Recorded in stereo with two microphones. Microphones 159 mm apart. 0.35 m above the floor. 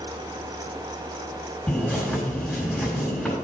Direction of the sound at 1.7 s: 5° left (ahead or behind).